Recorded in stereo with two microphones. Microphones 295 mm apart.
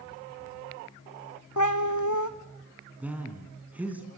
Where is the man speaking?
5° right (ahead or behind), 3 m.